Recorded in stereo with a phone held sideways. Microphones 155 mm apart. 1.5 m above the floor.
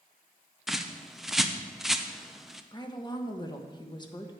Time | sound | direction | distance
0.7 | a bird | centre (ahead or behind) | 0.6 m
2.7 | a woman speaking | 30° left (ahead or behind) | 1.2 m